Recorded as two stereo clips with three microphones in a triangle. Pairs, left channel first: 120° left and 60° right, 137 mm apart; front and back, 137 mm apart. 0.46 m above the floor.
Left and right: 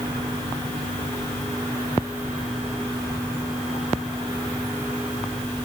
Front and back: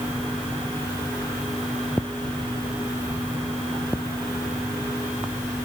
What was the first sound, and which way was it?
Only background noise.